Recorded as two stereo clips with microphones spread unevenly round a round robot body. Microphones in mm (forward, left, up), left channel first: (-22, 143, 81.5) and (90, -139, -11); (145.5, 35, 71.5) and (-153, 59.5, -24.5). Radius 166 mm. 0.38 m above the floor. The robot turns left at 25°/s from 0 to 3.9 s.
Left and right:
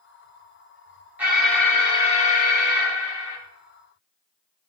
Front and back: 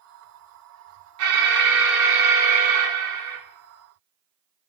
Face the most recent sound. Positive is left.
turn(degrees=145)